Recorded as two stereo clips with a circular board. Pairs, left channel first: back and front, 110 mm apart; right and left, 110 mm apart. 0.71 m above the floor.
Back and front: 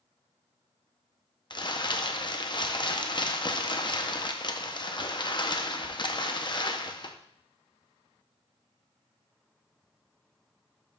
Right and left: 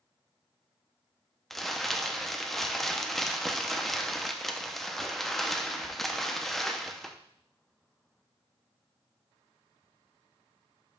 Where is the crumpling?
175° right, 0.6 m.